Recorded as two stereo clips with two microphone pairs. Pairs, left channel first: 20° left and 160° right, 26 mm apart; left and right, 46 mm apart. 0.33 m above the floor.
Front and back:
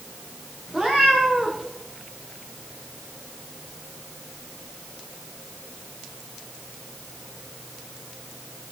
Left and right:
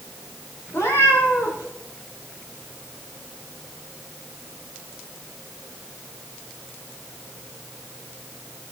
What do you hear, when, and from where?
0.7 s a cat meowing: 105° left, 6.5 m